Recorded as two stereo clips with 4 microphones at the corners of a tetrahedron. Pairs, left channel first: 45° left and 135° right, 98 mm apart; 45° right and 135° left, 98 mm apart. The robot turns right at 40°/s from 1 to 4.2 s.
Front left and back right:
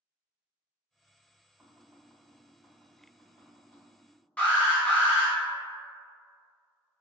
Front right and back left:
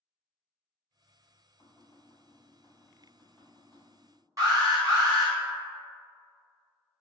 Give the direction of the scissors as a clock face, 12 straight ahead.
I don't hear scissors.